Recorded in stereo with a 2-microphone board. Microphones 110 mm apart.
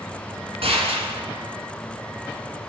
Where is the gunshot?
65° right (ahead or behind), 4.5 m.